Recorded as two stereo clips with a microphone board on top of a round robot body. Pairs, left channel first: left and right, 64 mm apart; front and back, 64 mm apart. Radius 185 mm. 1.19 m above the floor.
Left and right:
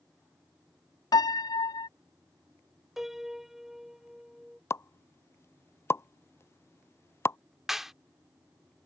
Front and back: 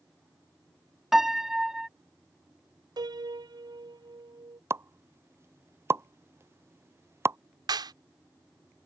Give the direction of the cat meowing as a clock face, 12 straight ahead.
No cat meowing in this recording.